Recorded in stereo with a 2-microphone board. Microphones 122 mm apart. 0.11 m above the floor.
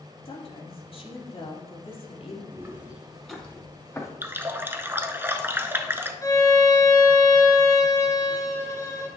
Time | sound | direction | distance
0.2 | a woman speaking | 50° left (ahead or behind) | 3 m
2.5 | footsteps | 20° right (ahead or behind) | 2.5 m
4.2 | a running tap | 20° right (ahead or behind) | 0.9 m
6.2 | a violin | 30° left (ahead or behind) | 1.7 m